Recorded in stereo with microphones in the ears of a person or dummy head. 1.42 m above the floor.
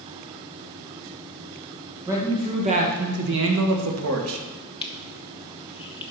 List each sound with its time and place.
2.1 s a man speaking: 15° right (ahead or behind), 1.8 m; by 4.4 s 75° right (ahead or behind), 1.7 m
4.8 s crushing: 30° left (ahead or behind), 0.7 m